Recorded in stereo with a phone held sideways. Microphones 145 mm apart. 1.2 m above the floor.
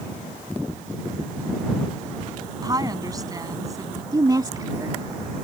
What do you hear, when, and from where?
2.6 s a woman speaking: 25° right (ahead or behind); by 4.0 s 20° right (ahead or behind)
4.1 s a woman speaking: 30° right (ahead or behind)